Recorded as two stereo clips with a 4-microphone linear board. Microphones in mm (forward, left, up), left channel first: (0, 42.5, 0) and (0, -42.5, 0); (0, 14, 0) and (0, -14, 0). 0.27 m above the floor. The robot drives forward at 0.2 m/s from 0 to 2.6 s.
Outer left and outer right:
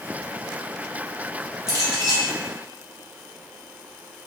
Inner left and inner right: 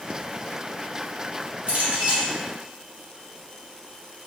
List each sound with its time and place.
1.7 s a clink: 50° right (ahead or behind), 1.9 m